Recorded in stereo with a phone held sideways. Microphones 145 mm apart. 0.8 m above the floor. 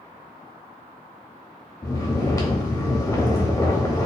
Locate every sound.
1.8 s snoring: 20° left (ahead or behind), 0.9 m